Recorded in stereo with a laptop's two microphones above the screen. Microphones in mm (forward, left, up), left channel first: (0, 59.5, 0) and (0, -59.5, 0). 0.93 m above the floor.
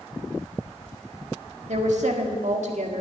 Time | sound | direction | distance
1.7 | a woman speaking | 75° right (ahead or behind) | 1.6 m